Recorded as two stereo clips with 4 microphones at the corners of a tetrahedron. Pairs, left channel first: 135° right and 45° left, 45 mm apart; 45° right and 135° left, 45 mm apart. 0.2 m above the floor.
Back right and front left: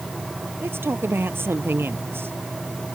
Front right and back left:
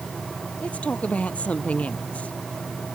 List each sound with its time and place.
0.6 s a man speaking: 15° left